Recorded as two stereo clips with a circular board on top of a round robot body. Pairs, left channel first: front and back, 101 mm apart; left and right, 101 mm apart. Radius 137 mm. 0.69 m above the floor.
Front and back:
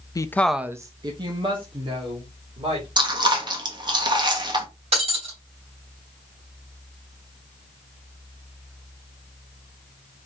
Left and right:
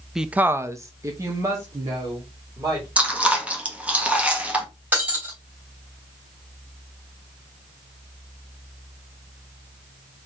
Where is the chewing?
165° right, 1.5 m.